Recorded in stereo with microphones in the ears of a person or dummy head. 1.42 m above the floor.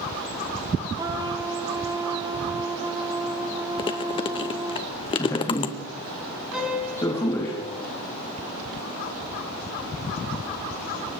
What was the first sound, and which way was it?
A trumpet, 20° right (ahead or behind).